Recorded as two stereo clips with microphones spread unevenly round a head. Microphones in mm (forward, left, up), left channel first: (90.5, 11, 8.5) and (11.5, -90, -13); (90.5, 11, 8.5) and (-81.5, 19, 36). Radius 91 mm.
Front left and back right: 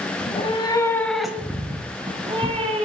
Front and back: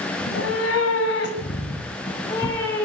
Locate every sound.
0.2 s a cat meowing: 25° left, 2.0 m; by 2.9 s 85° right, 3 m